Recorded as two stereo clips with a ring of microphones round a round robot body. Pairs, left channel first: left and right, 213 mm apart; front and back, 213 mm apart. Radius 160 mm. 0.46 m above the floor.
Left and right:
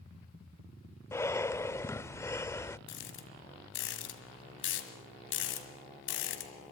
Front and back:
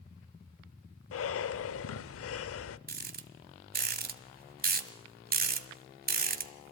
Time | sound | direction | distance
1.1 | breathing | 10° left | 0.7 m
2.9 | a rattle | 135° left | 1.7 m